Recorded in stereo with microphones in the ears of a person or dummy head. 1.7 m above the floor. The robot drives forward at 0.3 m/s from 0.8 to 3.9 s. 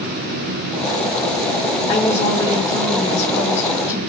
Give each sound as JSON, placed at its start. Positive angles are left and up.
{"t": 1.9, "sound": "a woman speaking", "side_deg": 25, "distance_m": 3.0}